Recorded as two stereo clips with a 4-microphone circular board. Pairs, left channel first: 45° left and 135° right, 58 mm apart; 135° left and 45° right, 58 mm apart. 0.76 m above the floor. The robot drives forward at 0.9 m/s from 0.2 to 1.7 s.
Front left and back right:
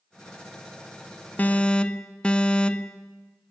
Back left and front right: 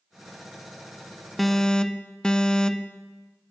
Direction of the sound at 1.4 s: 45° left.